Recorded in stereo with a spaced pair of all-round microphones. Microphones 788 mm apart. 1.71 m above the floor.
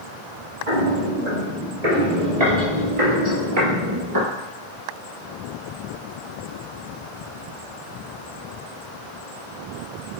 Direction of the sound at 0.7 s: 60° right (ahead or behind).